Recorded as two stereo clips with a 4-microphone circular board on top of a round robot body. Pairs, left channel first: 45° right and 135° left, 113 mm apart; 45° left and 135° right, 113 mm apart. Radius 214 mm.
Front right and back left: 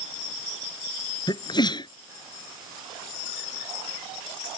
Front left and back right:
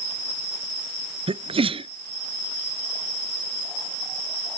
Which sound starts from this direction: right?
A sneeze, at 1.3 s.